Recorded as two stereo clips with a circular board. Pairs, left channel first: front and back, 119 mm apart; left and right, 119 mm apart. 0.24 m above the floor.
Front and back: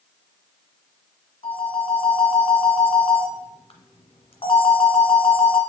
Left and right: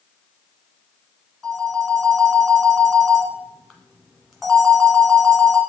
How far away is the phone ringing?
About 1.4 m.